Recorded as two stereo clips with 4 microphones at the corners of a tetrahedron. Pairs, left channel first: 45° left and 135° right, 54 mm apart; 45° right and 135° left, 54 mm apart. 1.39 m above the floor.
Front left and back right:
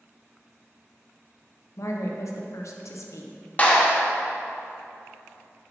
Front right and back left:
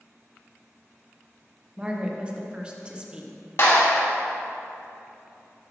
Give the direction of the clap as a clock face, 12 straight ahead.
1 o'clock.